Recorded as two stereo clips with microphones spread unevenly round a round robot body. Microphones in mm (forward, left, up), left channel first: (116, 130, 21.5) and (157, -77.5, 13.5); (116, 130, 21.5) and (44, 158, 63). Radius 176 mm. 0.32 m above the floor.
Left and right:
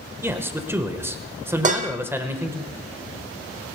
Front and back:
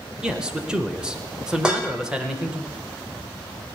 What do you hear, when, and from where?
0.2 s a man speaking: 25° right, 1.2 m
1.6 s dishes clattering: 85° right, 0.6 m